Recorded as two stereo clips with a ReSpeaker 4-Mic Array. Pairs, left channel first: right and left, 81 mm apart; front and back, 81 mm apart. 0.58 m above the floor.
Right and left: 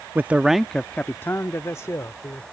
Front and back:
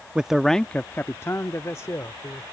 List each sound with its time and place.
0.1 s a man speaking: 120° left; by 2.4 s 45° right